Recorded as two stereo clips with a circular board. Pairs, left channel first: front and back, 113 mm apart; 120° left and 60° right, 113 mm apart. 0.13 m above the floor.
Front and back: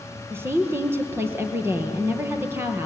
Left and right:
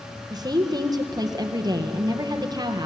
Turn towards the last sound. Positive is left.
turn(degrees=-110)